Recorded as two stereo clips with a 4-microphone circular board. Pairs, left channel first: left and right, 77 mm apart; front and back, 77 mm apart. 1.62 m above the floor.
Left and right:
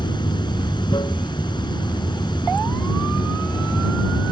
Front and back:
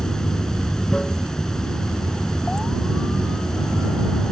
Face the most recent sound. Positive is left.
turn(degrees=80)